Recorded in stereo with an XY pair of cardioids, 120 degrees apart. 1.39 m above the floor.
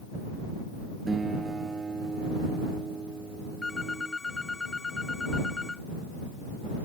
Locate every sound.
1.1 s a guitar: 25° right
3.6 s a phone ringing: 20° left